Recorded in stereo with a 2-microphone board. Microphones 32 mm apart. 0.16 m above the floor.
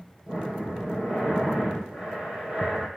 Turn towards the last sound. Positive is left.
turn(degrees=-35)  # may be behind; listen again after turning